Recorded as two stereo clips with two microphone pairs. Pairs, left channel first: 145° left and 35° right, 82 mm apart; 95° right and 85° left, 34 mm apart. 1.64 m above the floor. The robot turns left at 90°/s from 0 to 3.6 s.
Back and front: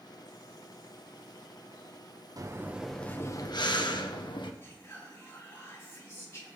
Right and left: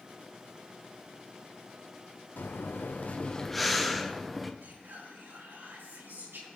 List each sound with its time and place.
2.4 s breathing: 75° right, 1.1 m; by 4.5 s 175° left, 1.1 m
4.6 s whispering: 90° left, 5.5 m